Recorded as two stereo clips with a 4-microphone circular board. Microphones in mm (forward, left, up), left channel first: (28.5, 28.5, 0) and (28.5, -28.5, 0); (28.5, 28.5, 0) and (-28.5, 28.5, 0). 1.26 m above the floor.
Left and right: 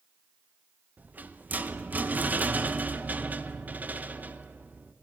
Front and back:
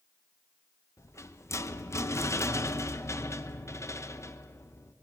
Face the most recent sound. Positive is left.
turn(degrees=-30)